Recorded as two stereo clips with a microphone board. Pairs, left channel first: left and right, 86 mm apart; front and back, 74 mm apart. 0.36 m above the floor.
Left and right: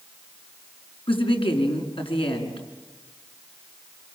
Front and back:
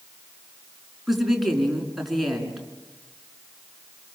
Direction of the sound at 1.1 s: 90° left.